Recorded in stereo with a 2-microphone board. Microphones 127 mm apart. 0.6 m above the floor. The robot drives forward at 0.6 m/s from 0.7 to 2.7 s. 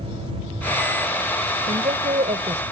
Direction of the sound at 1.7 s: 70° right (ahead or behind).